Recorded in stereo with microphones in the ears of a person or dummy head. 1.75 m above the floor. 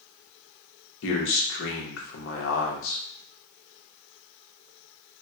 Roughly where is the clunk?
I don't hear a clunk.